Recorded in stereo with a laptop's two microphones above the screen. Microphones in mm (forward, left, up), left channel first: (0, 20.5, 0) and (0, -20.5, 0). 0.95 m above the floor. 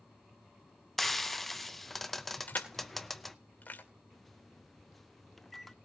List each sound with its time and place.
1.0 s frying: 5° left (ahead or behind), 0.8 m
2.5 s crushing: 40° left (ahead or behind), 2.5 m
4.1 s a microwave: 5° left (ahead or behind), 0.8 m